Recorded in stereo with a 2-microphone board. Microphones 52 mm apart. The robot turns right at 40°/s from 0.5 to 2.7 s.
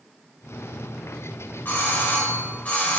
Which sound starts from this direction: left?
A doorbell, at 1.6 s.